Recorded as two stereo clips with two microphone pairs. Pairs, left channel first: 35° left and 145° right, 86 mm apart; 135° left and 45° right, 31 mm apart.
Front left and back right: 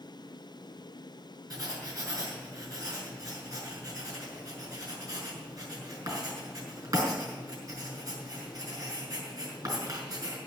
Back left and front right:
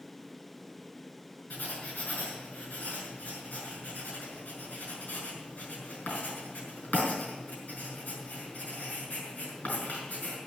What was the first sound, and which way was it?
Writing, 165° left.